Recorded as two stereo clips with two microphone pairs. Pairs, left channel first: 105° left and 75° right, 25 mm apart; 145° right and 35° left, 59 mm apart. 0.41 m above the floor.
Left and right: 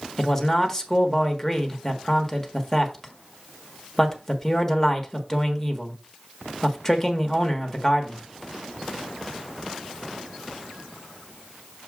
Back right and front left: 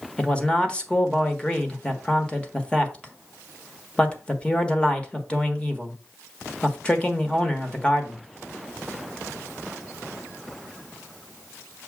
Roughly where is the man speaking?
Behind.